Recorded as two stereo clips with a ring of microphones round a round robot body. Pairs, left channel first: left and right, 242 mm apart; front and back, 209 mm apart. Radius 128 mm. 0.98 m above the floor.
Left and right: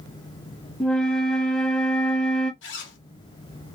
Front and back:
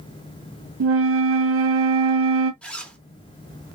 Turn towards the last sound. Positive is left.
turn(degrees=80)